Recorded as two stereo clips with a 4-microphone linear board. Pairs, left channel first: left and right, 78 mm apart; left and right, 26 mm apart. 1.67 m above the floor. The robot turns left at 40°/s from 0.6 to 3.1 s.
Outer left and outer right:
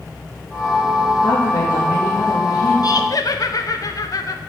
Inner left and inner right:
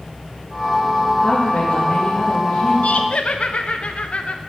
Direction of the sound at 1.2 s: 110° left.